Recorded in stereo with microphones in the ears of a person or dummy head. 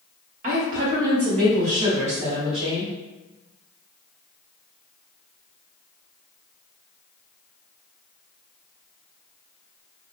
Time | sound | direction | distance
0.4 | a woman speaking | 40° right (ahead or behind) | 1.1 m